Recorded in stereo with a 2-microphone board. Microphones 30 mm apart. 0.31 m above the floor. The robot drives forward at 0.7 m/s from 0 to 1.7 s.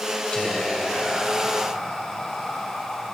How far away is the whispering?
About 1.9 m.